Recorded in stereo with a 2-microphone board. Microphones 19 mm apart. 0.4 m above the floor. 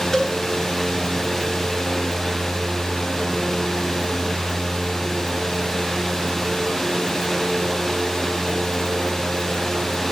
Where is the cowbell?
25° left (ahead or behind), 3 m.